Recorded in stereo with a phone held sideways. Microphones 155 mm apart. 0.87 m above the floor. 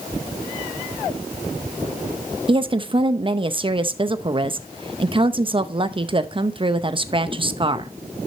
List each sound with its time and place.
2.5 s a woman speaking: 35° right (ahead or behind), 0.6 m